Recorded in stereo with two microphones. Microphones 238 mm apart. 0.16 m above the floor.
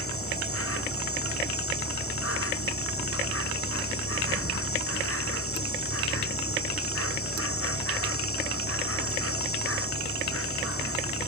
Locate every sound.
0.0 s an insect: 80° left